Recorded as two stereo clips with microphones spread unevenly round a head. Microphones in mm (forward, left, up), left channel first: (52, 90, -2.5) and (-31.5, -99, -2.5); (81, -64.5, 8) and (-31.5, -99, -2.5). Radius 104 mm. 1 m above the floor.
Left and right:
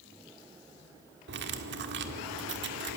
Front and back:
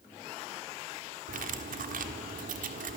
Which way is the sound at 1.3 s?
160° right.